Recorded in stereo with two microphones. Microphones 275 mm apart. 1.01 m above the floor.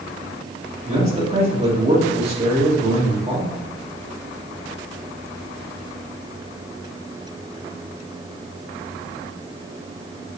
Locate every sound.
0.8 s a man speaking: 25° right (ahead or behind), 2.5 m